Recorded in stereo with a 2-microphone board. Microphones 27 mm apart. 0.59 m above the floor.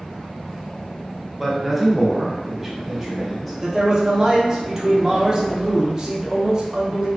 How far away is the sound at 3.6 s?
About 0.8 m.